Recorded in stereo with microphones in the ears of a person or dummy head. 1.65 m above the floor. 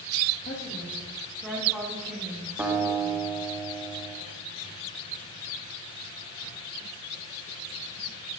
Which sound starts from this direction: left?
A woman speaking, at 0.4 s.